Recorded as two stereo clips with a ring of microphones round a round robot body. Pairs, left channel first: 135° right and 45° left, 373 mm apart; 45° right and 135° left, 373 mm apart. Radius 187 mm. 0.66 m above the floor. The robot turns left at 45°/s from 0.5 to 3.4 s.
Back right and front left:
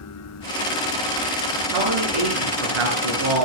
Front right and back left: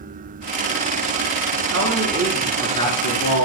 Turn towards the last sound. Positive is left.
turn(degrees=5)